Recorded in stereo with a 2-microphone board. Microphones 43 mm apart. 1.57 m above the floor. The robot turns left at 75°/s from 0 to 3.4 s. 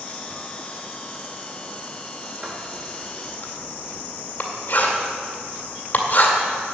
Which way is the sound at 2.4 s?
20° right (ahead or behind).